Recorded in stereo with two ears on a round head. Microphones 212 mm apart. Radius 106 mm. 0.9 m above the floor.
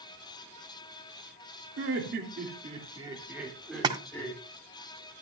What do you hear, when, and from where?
1.8 s laughter: 55° right (ahead or behind), 2.5 m; by 4.4 s 10° left (ahead or behind), 3.5 m
3.8 s a splash: 20° right (ahead or behind), 1.2 m